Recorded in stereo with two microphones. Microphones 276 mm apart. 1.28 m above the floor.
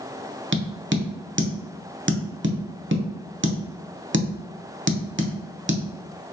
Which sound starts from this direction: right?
Tapping, at 0.5 s.